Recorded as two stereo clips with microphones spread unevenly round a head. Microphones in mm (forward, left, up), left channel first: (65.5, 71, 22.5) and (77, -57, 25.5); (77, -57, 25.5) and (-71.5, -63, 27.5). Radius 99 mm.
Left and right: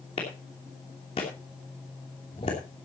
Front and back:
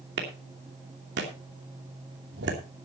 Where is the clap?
160° left, 2.5 m.